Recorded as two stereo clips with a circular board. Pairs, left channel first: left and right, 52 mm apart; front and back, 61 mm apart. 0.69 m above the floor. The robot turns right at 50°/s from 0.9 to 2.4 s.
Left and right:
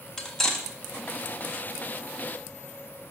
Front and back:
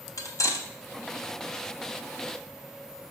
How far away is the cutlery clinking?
About 1.1 m.